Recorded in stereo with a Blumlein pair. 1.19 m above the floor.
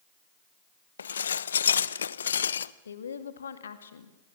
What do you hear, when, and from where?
1.0 s dishes clattering: 70° left, 0.6 m
2.9 s a woman speaking: 70° left, 2 m